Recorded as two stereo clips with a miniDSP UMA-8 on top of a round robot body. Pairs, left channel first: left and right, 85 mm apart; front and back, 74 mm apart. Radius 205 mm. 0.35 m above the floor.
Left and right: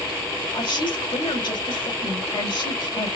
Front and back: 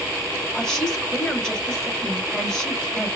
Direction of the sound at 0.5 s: 80° left.